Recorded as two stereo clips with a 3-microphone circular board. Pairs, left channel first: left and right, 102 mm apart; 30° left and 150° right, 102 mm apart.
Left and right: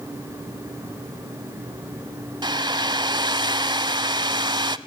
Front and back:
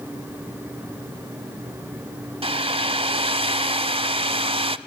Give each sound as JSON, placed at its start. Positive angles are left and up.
{"t": 2.4, "sound": "a hair dryer", "azimuth_deg": -130, "distance_m": 0.7}